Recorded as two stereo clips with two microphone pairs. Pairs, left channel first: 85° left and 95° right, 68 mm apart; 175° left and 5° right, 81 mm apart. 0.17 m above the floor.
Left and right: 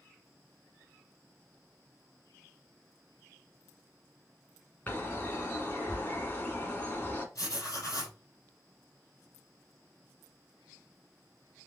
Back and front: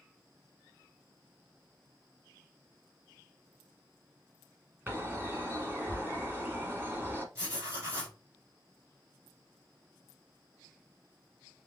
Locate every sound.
4.9 s a bird: 40° left, 1.1 m
7.3 s writing: 45° left, 3 m